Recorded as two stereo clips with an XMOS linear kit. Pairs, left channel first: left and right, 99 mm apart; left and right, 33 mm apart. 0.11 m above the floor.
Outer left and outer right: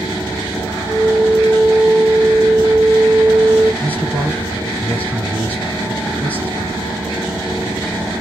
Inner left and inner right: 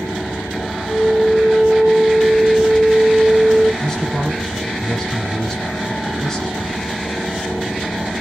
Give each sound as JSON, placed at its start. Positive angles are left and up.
{"t": 0.9, "sound": "a flute", "side_deg": -65, "distance_m": 1.7}
{"t": 3.8, "sound": "a man speaking", "side_deg": 15, "distance_m": 1.6}